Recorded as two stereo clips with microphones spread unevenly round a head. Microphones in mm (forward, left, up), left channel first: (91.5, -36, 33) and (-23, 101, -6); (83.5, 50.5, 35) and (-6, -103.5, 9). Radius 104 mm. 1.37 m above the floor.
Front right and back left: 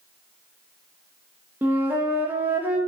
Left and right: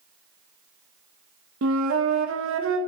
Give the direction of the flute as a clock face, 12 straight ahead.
5 o'clock.